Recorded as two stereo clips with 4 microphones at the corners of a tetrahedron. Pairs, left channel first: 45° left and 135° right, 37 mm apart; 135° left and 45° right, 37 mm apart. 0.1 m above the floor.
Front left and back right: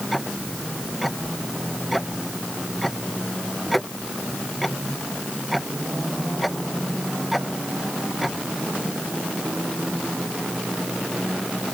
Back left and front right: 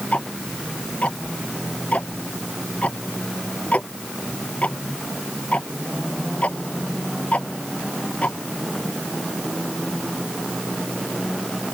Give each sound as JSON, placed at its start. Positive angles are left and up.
{"t": 0.1, "sound": "ticking", "azimuth_deg": 135}